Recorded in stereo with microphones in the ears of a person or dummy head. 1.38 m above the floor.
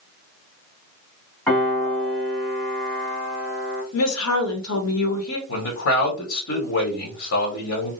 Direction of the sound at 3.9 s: 80° left.